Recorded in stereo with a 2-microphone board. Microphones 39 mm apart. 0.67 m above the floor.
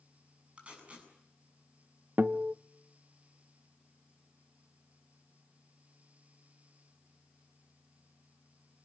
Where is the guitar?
55° right (ahead or behind), 0.7 m.